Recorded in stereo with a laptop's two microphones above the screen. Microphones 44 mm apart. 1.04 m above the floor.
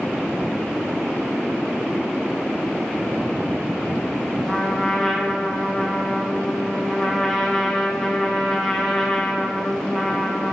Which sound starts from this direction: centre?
A trumpet, at 4.5 s.